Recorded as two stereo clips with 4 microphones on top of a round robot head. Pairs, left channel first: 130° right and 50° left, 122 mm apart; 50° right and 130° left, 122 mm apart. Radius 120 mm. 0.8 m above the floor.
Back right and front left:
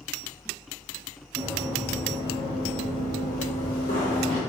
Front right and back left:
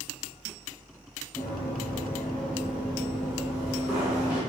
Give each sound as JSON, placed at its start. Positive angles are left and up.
{"t": 1.4, "sound": "running footsteps", "azimuth_deg": 10, "distance_m": 0.8}